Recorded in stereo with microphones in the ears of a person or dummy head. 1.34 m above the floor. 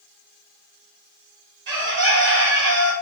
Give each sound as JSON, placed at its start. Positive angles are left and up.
{"t": 1.7, "sound": "a bird", "side_deg": -65, "distance_m": 1.3}